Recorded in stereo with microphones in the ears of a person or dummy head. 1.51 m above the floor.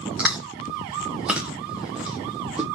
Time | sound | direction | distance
0.2 | chewing | 5° right (ahead or behind) | 0.8 m